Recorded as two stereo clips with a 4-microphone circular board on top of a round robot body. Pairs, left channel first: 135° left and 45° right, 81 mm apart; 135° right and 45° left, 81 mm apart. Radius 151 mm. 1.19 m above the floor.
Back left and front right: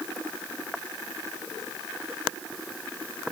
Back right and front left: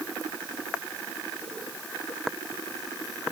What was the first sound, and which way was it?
Only background noise.